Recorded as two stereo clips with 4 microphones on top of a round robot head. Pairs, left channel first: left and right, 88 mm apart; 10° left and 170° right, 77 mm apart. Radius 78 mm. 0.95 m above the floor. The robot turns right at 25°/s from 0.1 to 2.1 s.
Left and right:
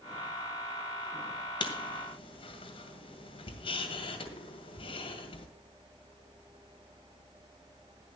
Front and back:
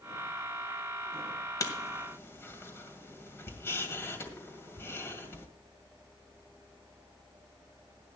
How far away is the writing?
About 2 m.